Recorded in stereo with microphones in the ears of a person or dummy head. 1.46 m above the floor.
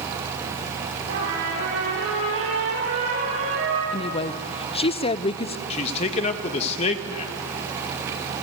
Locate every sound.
1.1 s a trumpet: 80° right, 8.5 m
3.9 s a woman speaking: 30° left (ahead or behind), 0.7 m
5.7 s a man speaking: 35° left (ahead or behind), 1.6 m